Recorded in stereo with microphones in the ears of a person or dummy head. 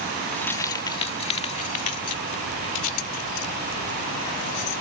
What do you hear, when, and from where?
0.3 s keys jangling: 5° left (ahead or behind); by 4.8 s 70° left (ahead or behind)